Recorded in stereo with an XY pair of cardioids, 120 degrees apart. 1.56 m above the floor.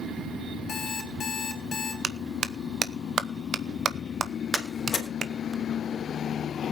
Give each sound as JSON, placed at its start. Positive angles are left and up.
{"t": 0.7, "sound": "an alarm clock", "azimuth_deg": 45, "distance_m": 3.5}
{"t": 2.0, "sound": "a clap", "azimuth_deg": -35, "distance_m": 0.9}
{"t": 4.5, "sound": "a door slam", "azimuth_deg": 35, "distance_m": 3.5}